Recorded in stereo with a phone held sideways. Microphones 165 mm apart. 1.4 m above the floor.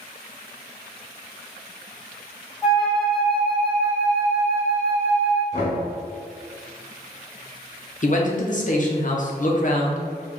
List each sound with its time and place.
2.6 s a flute: 5° right (ahead or behind), 1.1 m
5.5 s knocking: 40° left (ahead or behind), 1.5 m
8.0 s a man speaking: 50° left (ahead or behind), 0.7 m